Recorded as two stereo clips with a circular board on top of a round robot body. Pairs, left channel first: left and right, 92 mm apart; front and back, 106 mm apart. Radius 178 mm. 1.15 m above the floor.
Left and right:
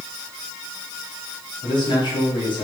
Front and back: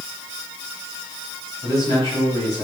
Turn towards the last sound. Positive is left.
turn(degrees=55)